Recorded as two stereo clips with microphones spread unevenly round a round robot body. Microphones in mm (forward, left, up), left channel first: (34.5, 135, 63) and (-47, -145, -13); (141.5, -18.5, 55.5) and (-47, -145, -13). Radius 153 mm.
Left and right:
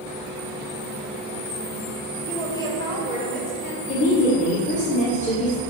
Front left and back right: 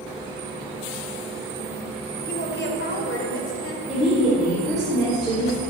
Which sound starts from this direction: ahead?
A woman speaking, at 2.2 s.